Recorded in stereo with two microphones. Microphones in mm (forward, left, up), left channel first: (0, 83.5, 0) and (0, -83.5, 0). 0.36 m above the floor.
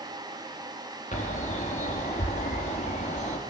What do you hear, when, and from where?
1.1 s a bird: 45° left (ahead or behind), 3.5 m